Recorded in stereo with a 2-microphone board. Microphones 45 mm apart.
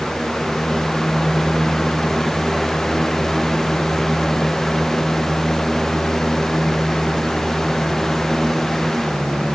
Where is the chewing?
No chewing in this recording.